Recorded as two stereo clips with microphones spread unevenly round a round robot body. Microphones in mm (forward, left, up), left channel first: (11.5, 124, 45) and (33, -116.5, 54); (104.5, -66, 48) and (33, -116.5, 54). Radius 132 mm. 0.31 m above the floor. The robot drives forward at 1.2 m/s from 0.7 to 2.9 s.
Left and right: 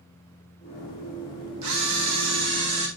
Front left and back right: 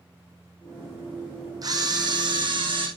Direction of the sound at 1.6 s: 100° right.